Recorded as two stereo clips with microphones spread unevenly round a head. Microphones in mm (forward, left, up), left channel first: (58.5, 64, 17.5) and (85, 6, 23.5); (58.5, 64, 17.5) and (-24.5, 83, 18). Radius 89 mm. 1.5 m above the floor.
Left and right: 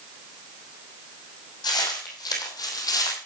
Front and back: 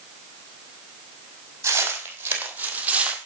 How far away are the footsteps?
About 3.5 m.